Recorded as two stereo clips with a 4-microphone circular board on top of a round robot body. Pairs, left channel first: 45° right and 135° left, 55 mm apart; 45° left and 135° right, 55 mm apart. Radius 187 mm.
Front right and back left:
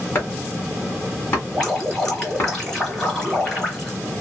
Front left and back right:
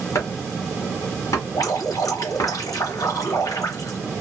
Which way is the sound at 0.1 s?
15° left.